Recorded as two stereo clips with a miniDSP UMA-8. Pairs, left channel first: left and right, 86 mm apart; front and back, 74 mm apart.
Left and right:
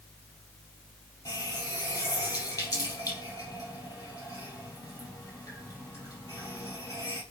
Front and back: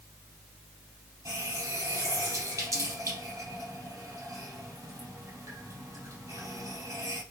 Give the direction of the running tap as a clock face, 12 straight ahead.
7 o'clock.